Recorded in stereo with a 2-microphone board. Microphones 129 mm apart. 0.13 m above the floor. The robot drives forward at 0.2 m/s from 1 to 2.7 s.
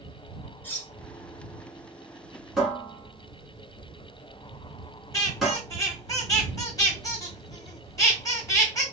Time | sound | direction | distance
0.6 | cutlery clinking | 15° left (ahead or behind) | 0.9 m
2.6 | a cupboard door | centre (ahead or behind) | 1.4 m
5.1 | a squeak | 25° left (ahead or behind) | 1.3 m